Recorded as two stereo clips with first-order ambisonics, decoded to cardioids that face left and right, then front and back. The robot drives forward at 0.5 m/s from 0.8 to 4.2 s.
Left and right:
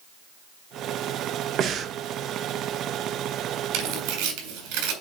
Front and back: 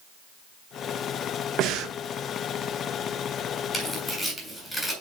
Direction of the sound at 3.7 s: 85° right.